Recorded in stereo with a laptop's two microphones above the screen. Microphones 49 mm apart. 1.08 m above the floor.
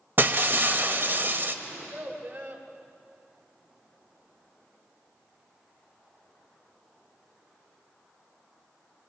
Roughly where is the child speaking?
Right.